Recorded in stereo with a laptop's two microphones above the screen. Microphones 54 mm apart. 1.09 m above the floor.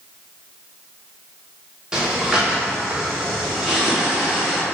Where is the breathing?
15° right (ahead or behind), 0.7 m.